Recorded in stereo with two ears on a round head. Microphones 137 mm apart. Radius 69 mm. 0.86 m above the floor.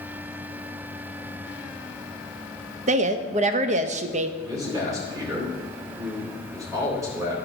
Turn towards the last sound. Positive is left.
turn(degrees=-20)  # may be behind; listen again after turning